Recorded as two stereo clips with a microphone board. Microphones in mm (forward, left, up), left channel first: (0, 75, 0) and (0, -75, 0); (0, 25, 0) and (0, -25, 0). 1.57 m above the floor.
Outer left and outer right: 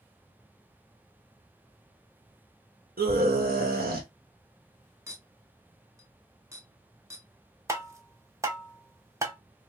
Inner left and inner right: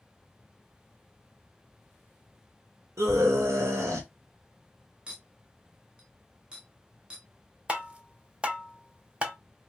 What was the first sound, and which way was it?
A scream, 80° right.